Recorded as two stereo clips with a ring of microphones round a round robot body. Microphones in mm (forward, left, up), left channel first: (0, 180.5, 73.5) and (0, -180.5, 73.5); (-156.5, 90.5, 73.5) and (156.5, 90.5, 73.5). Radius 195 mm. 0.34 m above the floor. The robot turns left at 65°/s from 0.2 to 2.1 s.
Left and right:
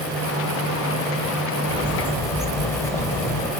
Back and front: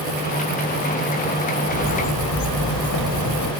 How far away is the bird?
About 1.1 m.